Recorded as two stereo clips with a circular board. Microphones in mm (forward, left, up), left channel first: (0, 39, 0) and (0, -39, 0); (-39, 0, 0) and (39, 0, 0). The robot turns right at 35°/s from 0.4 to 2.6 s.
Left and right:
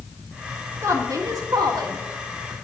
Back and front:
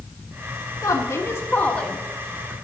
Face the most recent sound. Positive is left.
turn(degrees=-75)